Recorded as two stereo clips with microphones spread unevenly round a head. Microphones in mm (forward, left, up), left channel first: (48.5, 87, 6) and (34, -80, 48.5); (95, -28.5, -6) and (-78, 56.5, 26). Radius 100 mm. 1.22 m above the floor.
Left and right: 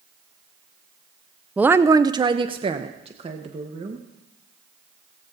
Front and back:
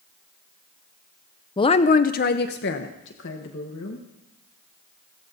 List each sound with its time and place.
1.6 s a woman speaking: 5° left, 0.5 m; by 4.0 s 40° right, 1.7 m